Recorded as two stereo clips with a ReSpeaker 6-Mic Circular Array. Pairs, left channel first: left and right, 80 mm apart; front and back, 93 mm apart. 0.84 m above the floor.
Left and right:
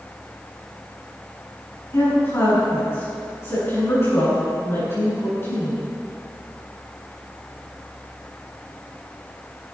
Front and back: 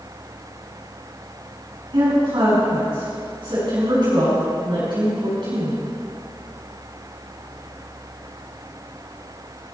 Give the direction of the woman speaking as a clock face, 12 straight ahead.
7 o'clock.